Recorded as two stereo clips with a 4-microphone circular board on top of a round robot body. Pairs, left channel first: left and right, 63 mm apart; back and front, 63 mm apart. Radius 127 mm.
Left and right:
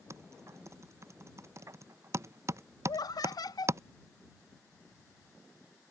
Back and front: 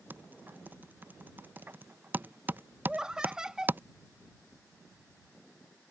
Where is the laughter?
80° left.